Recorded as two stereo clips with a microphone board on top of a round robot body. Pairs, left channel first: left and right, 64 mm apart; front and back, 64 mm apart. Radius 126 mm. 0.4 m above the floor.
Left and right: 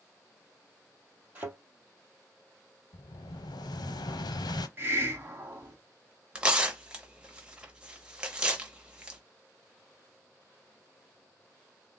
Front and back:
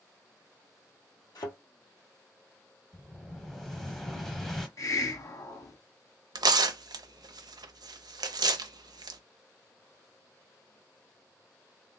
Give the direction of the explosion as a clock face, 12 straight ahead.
9 o'clock.